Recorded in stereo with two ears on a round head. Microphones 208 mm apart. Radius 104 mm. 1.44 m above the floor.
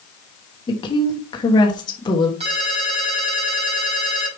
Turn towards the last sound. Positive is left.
turn(degrees=-25)  # may be behind; listen again after turning